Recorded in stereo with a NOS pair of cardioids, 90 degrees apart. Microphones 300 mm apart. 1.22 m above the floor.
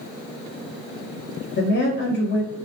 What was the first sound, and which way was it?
A woman speaking, 35° left.